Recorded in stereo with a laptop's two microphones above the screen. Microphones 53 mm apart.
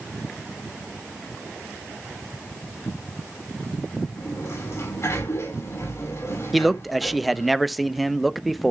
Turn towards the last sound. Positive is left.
turn(degrees=0)  # may be behind; listen again after turning